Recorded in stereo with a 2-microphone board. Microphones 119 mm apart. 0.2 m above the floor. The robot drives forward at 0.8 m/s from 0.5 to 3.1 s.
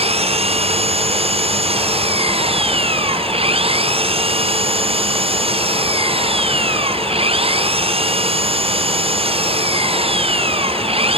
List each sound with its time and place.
0.0 s an engine running: 55° right (ahead or behind)